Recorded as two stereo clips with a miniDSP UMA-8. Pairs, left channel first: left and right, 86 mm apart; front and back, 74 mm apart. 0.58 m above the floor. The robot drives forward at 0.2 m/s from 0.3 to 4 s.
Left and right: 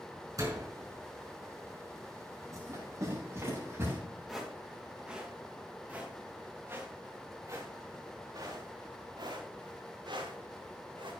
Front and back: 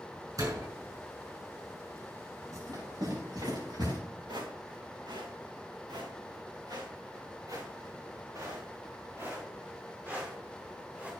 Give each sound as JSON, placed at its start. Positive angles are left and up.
{"t": 0.4, "sound": "a door slam", "azimuth_deg": -140, "distance_m": 5.5}
{"t": 2.5, "sound": "running footsteps", "azimuth_deg": -145, "distance_m": 9.0}
{"t": 4.3, "sound": "footsteps", "azimuth_deg": -175, "distance_m": 4.5}